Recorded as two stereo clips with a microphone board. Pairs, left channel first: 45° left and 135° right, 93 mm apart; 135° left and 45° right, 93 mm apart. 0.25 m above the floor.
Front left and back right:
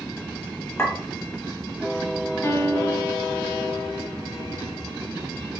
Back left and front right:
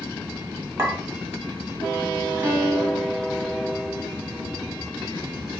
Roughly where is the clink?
Ahead.